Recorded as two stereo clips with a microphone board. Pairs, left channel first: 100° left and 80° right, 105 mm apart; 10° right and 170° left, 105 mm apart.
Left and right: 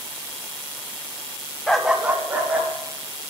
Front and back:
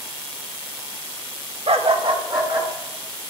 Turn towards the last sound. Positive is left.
turn(degrees=-145)